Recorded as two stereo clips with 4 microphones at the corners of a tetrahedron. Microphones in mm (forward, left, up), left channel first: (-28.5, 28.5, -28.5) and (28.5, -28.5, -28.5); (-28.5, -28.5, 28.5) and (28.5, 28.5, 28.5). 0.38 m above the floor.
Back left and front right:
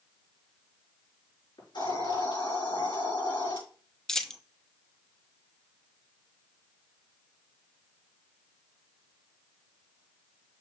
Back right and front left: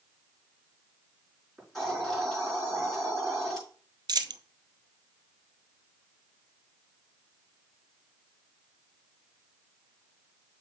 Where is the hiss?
140° left, 5 m.